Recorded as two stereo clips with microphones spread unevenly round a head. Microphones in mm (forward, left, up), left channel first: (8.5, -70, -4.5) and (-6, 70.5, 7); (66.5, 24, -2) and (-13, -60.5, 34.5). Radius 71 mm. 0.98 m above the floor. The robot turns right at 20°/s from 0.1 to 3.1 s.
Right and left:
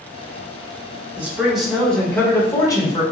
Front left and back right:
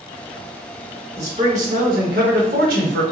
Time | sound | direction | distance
1.2 | a man speaking | 175° left | 1.1 m